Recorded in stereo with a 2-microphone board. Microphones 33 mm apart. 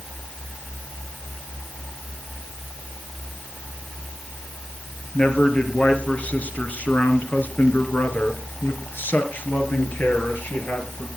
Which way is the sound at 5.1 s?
30° left (ahead or behind).